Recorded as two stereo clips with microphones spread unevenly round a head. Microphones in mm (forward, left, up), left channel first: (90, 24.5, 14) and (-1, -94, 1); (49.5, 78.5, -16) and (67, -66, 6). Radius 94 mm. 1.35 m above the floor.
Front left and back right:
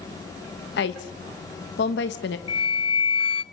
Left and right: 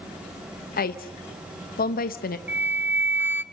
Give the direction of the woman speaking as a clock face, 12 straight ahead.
10 o'clock.